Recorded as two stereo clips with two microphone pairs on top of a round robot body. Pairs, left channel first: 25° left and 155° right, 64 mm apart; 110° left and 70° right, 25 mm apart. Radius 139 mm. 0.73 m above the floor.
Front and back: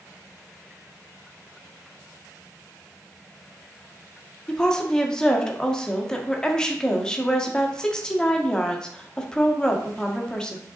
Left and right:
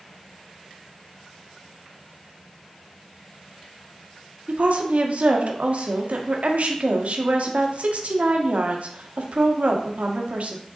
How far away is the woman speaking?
About 1.8 m.